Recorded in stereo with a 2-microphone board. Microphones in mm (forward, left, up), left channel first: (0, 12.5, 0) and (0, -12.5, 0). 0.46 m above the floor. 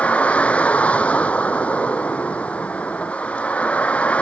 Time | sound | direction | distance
0.0 | a vehicle | 65° left (ahead or behind) | ?